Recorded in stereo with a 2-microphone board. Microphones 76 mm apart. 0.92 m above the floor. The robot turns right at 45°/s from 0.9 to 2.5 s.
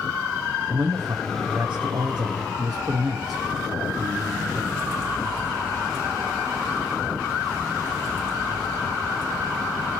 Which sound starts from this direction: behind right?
A man speaking, at 0.7 s.